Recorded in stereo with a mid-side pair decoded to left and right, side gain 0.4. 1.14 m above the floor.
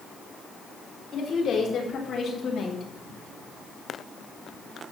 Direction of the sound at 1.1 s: 60° left.